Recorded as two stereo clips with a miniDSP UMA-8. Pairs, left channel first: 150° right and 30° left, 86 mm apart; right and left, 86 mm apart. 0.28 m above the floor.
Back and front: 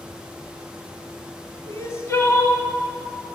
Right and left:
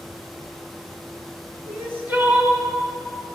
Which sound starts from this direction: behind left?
Crying, at 1.7 s.